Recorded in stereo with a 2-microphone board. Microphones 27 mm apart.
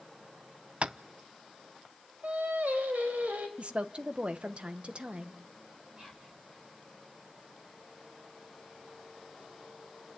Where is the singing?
85° right, 4.5 m.